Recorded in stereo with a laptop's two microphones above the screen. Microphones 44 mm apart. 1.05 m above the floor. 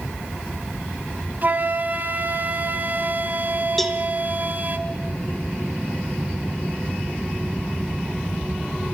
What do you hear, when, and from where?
1.4 s a flute: 40° right (ahead or behind), 1.9 m
3.8 s a cowbell: 5° left (ahead or behind), 1.0 m